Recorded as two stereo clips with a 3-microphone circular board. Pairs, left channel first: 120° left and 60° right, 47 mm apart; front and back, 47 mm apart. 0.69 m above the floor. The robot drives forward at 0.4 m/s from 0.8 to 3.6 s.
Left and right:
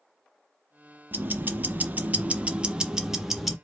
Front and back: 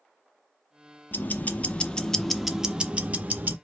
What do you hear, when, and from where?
1.1 s ticking: 30° right, 0.7 m; by 3.5 s 150° right, 0.7 m